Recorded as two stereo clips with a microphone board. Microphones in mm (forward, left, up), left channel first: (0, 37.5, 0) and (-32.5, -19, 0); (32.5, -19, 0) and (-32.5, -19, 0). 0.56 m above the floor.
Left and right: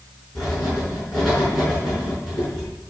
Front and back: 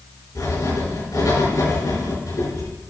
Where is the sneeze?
No sneeze in this recording.